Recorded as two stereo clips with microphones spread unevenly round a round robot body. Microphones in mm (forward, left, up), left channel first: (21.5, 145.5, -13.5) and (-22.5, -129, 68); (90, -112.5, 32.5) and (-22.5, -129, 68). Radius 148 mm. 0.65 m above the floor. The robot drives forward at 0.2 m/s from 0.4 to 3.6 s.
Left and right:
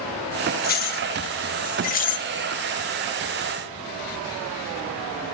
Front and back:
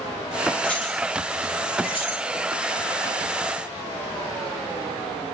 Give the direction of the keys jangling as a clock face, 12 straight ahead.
10 o'clock.